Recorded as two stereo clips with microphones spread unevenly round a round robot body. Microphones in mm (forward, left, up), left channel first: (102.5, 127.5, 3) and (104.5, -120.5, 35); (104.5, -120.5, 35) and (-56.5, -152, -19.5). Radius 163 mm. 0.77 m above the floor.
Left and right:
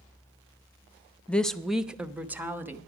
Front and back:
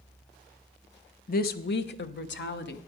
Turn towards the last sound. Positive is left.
turn(degrees=-5)